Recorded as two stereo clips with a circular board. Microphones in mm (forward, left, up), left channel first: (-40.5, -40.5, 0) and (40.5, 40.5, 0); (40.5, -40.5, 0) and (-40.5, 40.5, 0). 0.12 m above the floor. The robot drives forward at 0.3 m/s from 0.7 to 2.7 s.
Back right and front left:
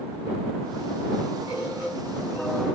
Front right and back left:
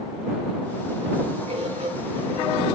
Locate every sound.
1.5 s a bird: 120° left, 4 m; by 2.5 s 125° left, 4.5 m